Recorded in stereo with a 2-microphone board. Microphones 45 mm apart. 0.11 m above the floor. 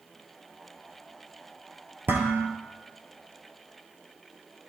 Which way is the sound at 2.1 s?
50° right (ahead or behind).